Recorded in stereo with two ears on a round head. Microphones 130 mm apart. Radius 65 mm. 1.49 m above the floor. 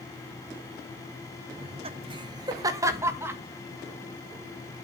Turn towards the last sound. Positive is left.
turn(degrees=-15)  # may be behind; listen again after turning